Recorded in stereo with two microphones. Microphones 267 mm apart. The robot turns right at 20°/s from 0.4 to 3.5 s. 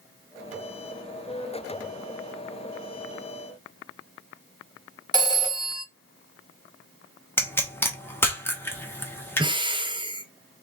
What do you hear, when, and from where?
5.1 s a phone ringing: 15° right (ahead or behind), 1.0 m
7.4 s a pop: 10° left (ahead or behind), 0.9 m
9.4 s breathing: 20° right (ahead or behind), 0.6 m